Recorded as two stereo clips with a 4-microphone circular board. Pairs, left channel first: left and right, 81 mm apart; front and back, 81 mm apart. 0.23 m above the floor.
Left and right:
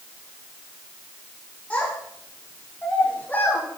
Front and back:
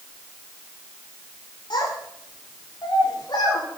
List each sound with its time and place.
1.7 s a child speaking: 20° left, 7 m; by 3.6 s 25° left, 7.5 m